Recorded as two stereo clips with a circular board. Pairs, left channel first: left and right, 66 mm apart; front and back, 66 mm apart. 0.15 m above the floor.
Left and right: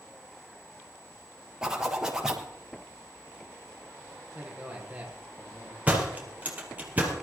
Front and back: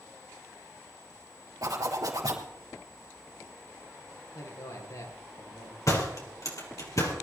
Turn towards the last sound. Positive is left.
turn(degrees=-25)